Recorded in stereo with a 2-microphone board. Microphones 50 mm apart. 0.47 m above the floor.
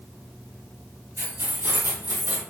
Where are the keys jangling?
75° right (ahead or behind), 1.5 m; by 2.4 s 40° right (ahead or behind), 1.3 m.